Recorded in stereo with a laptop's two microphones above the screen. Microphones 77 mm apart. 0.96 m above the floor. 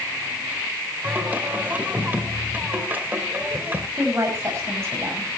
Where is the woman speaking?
35° right (ahead or behind), 5.5 m.